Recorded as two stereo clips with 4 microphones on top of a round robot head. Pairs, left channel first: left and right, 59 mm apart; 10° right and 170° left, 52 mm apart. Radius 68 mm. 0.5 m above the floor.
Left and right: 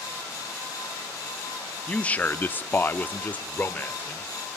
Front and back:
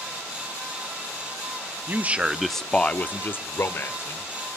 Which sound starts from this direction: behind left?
A man speaking, at 1.9 s.